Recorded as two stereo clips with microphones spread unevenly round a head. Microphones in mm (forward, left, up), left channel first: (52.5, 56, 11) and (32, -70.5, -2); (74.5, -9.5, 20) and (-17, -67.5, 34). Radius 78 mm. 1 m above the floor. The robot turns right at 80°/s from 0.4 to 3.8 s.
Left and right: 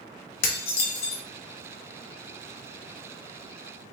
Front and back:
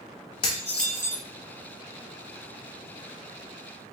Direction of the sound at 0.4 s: 85° left.